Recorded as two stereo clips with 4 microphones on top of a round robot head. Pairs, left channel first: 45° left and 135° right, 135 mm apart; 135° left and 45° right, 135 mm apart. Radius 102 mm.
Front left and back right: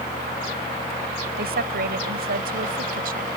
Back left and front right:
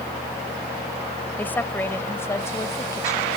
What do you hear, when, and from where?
1.4 s a woman speaking: 150° right; by 3.3 s 155° right